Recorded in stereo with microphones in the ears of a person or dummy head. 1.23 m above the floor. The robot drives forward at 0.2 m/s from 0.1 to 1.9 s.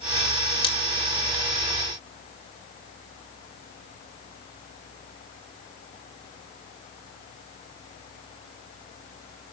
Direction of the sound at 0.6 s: 25° left (ahead or behind).